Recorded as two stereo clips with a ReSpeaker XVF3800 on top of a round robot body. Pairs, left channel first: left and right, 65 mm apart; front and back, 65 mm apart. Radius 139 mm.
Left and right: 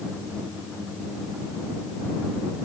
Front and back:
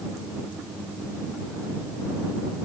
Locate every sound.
Only background noise.